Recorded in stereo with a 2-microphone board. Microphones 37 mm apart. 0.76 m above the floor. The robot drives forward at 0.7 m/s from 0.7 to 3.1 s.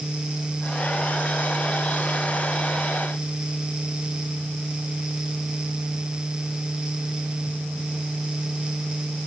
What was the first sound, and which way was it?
Only background noise.